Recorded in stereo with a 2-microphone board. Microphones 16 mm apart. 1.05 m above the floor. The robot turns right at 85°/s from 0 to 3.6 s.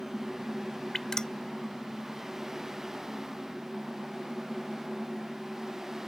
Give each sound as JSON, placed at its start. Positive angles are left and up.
{"t": 0.9, "sound": "dripping", "side_deg": 30}